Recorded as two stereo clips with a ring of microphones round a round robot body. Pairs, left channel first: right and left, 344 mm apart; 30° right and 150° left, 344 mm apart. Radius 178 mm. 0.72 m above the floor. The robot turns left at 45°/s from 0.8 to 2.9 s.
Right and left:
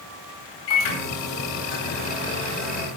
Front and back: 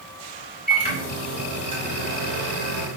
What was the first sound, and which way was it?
A microwave, 95° right.